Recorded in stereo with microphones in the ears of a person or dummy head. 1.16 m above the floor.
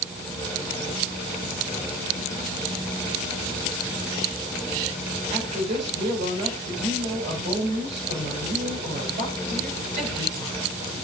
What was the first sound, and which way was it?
A woman speaking, 35° right (ahead or behind).